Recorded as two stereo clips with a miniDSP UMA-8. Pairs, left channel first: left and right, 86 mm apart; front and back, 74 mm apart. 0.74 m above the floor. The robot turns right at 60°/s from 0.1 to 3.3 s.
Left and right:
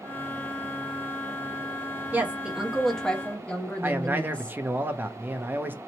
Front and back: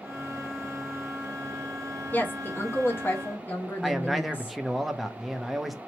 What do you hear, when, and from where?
2.1 s a woman speaking: 40° right, 0.7 m; by 4.6 s 30° left, 0.7 m
3.8 s a man speaking: 95° right, 0.6 m